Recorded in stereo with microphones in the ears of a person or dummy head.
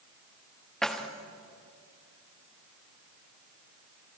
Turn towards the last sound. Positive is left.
turn(degrees=5)  # may be behind; listen again after turning